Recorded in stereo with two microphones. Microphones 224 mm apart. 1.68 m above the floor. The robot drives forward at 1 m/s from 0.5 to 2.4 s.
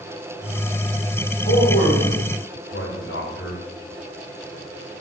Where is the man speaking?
50° left (ahead or behind), 3 m; by 3.6 s 65° left (ahead or behind), 2.5 m.